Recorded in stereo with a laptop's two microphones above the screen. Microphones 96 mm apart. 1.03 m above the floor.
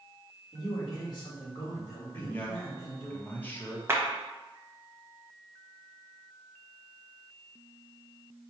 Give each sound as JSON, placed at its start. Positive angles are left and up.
{"t": 0.5, "sound": "a man speaking", "side_deg": 40, "distance_m": 1.4}
{"t": 2.1, "sound": "a man speaking", "side_deg": 20, "distance_m": 1.0}
{"t": 3.9, "sound": "a clap", "side_deg": -25, "distance_m": 0.9}